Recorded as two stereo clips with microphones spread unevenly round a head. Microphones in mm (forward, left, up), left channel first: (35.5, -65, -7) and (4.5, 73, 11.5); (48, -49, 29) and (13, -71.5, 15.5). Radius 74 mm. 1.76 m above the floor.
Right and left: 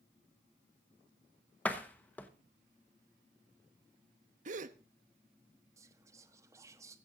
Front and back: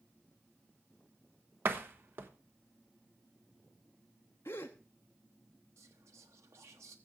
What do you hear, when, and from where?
1.6 s a door slam: 160° right, 1.0 m
4.5 s a gasp: 80° left, 0.8 m
5.8 s whispering: 170° left, 1.2 m